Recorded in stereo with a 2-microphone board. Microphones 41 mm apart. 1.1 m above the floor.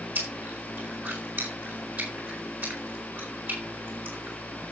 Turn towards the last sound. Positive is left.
turn(degrees=-55)  # may be behind; listen again after turning